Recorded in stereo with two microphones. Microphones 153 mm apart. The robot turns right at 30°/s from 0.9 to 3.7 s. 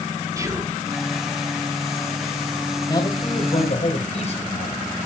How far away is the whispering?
About 1.6 m.